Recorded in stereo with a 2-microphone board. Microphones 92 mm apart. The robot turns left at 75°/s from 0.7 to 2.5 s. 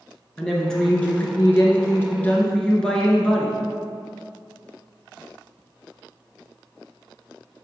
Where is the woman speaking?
10° left (ahead or behind), 1.1 m.